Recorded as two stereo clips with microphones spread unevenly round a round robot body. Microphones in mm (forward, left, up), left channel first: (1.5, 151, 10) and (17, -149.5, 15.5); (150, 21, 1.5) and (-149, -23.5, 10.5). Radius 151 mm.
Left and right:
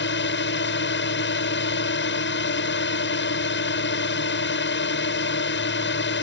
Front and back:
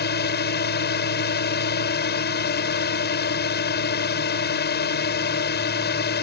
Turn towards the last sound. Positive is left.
turn(degrees=55)